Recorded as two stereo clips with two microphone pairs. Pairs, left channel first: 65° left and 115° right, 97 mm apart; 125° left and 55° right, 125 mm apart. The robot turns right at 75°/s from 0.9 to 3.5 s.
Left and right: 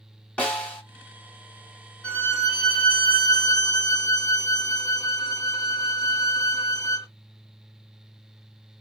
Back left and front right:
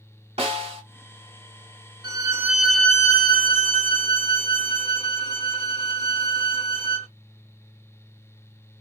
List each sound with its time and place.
0.4 s a snare drum: 15° right, 2.5 m
2.0 s a violin: 10° right, 1.3 m; by 7.1 s 100° left, 1.3 m